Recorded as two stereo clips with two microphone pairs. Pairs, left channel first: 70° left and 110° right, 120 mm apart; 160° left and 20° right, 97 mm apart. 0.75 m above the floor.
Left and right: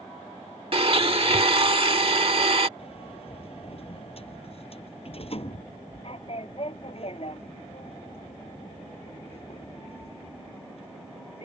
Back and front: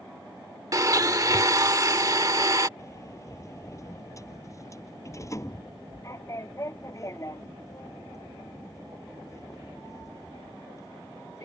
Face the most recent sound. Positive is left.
turn(degrees=105)